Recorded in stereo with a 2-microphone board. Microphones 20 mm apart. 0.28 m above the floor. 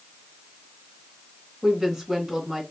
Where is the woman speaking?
30° right (ahead or behind), 3 m.